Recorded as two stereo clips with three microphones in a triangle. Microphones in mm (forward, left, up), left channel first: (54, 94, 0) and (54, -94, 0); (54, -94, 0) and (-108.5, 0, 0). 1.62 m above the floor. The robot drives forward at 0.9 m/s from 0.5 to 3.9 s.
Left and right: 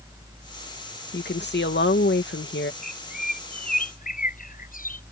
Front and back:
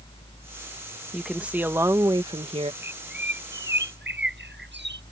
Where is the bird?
130° left.